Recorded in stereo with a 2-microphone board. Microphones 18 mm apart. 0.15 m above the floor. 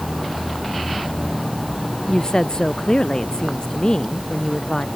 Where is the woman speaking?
50° left (ahead or behind).